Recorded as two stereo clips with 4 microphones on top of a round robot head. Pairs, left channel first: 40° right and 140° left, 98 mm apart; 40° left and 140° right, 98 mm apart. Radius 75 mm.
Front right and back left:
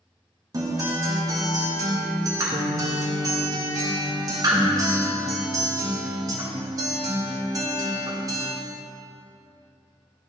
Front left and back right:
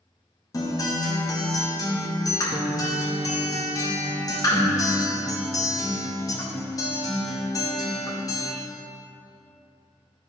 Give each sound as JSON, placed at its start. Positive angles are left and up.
{"t": 0.5, "sound": "a guitar", "azimuth_deg": 90, "distance_m": 1.4}